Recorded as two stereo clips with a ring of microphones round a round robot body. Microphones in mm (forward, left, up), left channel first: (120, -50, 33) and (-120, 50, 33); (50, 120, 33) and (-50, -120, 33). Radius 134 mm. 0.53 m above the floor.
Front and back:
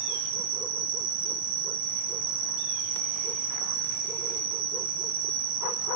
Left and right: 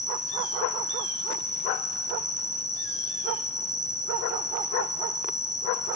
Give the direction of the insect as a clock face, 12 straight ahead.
7 o'clock.